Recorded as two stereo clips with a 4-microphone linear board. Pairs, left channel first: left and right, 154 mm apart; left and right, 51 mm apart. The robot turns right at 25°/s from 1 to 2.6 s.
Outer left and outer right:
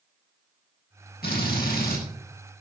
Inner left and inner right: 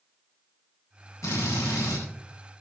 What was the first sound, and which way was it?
A drill, 80° left.